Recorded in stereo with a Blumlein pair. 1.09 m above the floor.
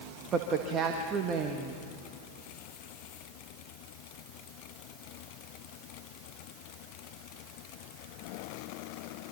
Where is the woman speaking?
25° right, 1.7 m.